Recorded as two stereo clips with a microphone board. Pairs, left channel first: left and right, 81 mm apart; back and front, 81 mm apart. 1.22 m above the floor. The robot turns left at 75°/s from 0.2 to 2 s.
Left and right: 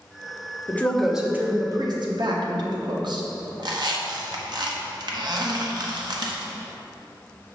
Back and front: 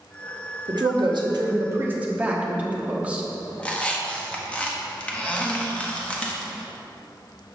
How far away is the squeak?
About 0.9 m.